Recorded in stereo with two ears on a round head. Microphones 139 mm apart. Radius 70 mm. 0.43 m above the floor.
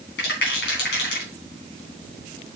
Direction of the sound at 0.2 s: 75° left (ahead or behind).